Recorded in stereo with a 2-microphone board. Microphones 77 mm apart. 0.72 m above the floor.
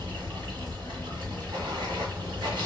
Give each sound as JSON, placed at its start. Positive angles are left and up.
{"t": 0.0, "sound": "running water", "side_deg": -80, "distance_m": 1.5}